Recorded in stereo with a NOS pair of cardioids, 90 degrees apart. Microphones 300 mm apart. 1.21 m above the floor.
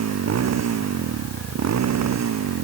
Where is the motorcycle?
60° right; by 2.6 s 65° right.